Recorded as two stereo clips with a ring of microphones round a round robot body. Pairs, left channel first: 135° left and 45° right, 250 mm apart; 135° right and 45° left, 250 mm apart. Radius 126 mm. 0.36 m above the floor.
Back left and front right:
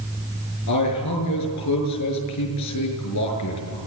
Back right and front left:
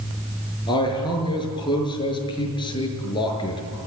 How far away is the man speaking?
About 6 m.